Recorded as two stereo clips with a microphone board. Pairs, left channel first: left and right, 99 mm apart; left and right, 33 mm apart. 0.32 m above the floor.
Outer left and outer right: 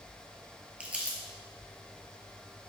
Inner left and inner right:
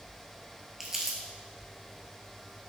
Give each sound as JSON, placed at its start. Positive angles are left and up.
{"t": 0.8, "sound": "crumpling", "side_deg": -15, "distance_m": 1.0}